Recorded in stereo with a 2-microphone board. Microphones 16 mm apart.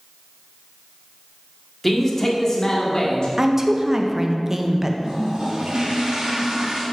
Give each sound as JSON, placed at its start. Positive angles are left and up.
{"t": 1.8, "sound": "a man speaking", "side_deg": 5, "distance_m": 1.6}
{"t": 3.4, "sound": "a woman speaking", "side_deg": -25, "distance_m": 0.7}
{"t": 5.0, "sound": "a toilet flushing", "side_deg": -55, "distance_m": 2.0}